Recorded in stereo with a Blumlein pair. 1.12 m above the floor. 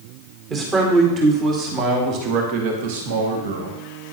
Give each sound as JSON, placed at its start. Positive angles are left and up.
{"t": 0.5, "sound": "a man speaking", "azimuth_deg": -25, "distance_m": 2.5}